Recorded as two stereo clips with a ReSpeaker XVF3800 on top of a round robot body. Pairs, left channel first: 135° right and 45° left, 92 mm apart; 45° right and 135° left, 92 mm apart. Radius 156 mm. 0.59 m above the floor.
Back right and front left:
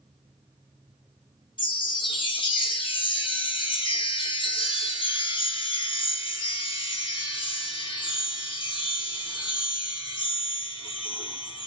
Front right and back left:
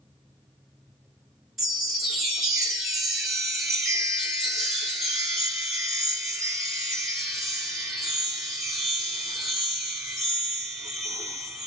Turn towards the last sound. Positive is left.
turn(degrees=-140)